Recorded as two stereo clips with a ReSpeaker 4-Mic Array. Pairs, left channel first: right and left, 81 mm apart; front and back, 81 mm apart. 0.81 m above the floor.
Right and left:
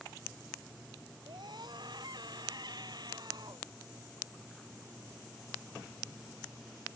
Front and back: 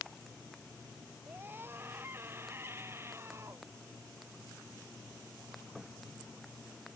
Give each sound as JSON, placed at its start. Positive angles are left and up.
{"t": 1.3, "sound": "a scream", "azimuth_deg": 115}